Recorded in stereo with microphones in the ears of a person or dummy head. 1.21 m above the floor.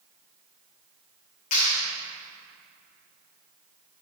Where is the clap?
40° left (ahead or behind), 3 m.